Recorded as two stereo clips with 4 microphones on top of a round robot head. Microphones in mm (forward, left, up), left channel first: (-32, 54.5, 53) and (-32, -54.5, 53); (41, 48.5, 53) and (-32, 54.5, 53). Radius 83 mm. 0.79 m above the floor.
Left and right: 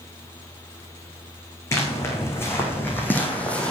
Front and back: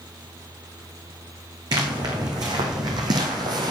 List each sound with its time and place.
1.7 s footsteps: 155° left, 3 m; by 3.7 s 170° left, 1.4 m